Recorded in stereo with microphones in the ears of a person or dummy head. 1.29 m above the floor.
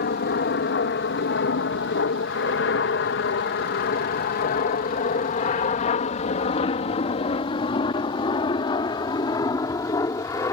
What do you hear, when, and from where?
0.0 s an aircraft: 45° left (ahead or behind); by 10.5 s 25° left (ahead or behind)